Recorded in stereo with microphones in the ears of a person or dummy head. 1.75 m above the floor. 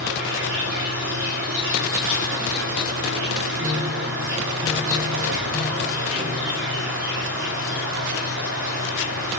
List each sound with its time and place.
0.0 s an insect: 60° right (ahead or behind), 6.5 m
3.6 s a piano: 15° right (ahead or behind), 3 m